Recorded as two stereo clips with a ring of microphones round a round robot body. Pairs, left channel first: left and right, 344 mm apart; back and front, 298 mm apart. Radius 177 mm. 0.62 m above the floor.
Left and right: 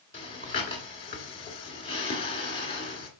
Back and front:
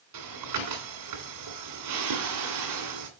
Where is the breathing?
15° left, 2.5 m.